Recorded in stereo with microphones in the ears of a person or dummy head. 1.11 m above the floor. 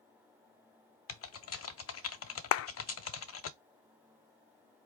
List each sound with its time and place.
1.1 s typing on a keyboard: 65° left (ahead or behind), 0.5 m
2.5 s a clap: 70° left (ahead or behind), 0.5 m